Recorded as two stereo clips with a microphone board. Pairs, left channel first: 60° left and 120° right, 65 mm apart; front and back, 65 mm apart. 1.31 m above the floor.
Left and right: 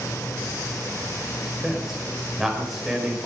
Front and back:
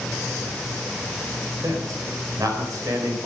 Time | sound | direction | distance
1.6 | a man speaking | 150° left | 5 m